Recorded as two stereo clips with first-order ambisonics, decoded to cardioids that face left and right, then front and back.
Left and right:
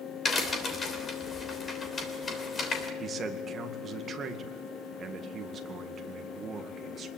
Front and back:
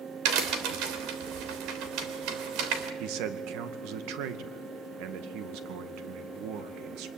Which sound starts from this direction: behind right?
A man speaking, at 3.0 s.